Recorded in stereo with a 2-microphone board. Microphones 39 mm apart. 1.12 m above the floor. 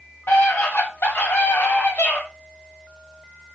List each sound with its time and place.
0.3 s a scream: 80° left, 4 m